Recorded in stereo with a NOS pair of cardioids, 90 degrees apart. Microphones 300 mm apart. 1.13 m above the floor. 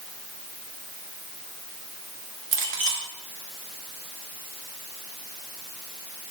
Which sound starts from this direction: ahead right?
A clink, at 2.5 s.